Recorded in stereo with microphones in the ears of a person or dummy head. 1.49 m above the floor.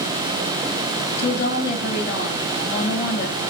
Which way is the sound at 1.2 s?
55° left (ahead or behind).